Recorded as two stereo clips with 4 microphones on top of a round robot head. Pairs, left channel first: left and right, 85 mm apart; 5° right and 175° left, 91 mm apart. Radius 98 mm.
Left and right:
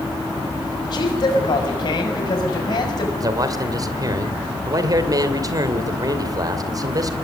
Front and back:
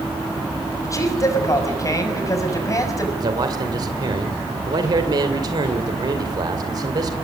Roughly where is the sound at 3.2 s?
Behind right.